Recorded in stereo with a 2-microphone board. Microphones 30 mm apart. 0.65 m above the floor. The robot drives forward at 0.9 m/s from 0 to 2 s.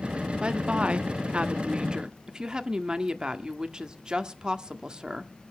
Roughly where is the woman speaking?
Right.